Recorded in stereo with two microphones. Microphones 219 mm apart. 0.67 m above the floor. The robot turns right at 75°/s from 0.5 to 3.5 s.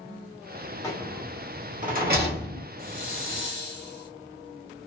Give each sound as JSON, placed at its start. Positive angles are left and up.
{"t": 0.8, "sound": "a rattle", "side_deg": 15, "distance_m": 1.0}
{"t": 2.8, "sound": "a hiss", "azimuth_deg": 75, "distance_m": 0.9}